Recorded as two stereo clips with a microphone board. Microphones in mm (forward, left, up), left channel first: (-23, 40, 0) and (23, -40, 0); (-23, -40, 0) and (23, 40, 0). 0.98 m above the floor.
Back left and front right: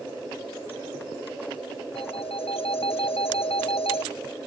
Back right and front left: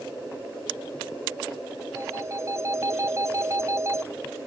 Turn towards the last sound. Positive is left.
turn(degrees=120)